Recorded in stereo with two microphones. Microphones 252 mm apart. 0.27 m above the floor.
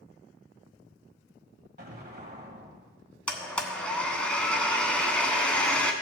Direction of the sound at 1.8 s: 40° right (ahead or behind).